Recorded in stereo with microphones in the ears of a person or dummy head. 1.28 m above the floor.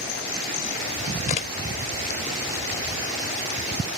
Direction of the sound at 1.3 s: 40° left (ahead or behind).